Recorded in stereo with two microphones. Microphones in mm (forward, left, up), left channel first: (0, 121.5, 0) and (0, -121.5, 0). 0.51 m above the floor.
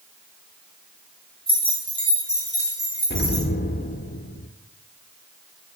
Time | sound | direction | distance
1.5 | keys jangling | 40° right (ahead or behind) | 3 m
3.1 | an explosion | 45° left (ahead or behind) | 0.6 m